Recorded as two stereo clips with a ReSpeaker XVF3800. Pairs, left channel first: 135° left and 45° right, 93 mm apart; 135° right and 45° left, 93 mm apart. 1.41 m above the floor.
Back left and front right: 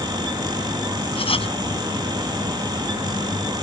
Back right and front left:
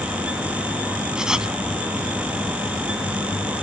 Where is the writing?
130° left.